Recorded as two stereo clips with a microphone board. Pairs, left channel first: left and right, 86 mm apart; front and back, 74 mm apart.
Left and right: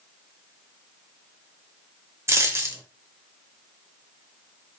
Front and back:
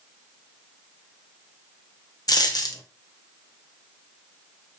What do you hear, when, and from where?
2.3 s a dropped coin: 35° right, 0.6 m